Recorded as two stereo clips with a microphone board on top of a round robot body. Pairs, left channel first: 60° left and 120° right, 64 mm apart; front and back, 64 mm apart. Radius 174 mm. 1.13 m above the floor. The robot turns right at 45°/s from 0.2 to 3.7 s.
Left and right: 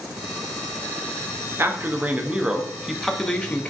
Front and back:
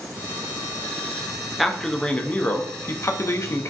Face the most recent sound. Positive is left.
turn(degrees=5)